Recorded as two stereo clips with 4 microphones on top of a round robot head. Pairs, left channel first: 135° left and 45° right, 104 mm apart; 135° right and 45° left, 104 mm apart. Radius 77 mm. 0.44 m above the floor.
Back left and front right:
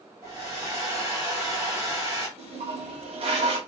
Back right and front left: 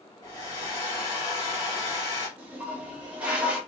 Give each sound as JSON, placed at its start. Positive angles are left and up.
{"t": 0.2, "sound": "a hair dryer", "azimuth_deg": -100, "distance_m": 1.8}
{"t": 2.4, "sound": "a toilet flushing", "azimuth_deg": -35, "distance_m": 0.9}